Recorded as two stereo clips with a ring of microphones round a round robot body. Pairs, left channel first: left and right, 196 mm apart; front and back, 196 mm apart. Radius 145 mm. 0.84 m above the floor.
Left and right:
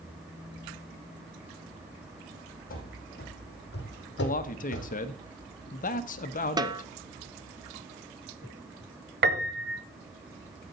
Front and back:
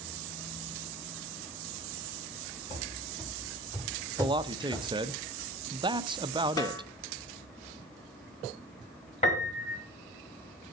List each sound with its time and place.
2.7 s running footsteps: 50° left, 2 m; by 5.0 s 90° left, 1.8 m
4.2 s a man speaking: 120° left, 0.7 m
6.6 s a snare drum: 50° right, 0.8 m
9.2 s a piano: 65° right, 1.0 m